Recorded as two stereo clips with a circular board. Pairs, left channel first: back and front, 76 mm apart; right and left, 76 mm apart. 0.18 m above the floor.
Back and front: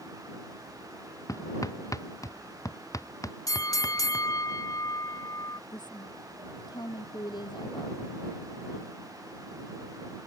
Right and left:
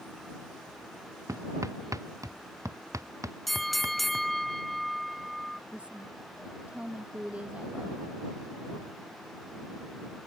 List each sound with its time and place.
1.3 s hammering: 135° left
3.5 s a bell: straight behind
5.7 s a woman speaking: 165° left